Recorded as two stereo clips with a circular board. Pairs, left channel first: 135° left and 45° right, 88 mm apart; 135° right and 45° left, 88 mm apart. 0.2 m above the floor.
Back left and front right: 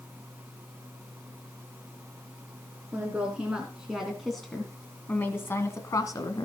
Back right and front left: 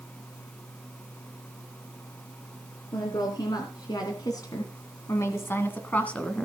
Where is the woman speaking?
110° right, 3 m; by 6.5 s 150° left, 2 m.